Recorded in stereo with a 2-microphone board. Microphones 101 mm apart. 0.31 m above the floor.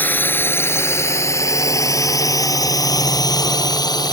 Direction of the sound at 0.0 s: 15° left (ahead or behind).